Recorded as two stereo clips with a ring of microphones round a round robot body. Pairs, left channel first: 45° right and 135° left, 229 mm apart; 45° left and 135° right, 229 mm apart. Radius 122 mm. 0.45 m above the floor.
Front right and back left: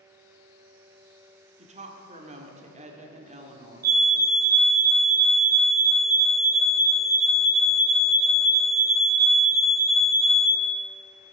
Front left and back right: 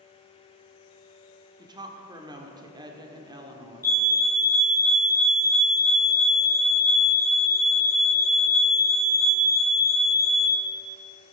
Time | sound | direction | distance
1.6 | a woman speaking | 165° left | 1.6 m
3.8 | a fire alarm | 115° left | 2.5 m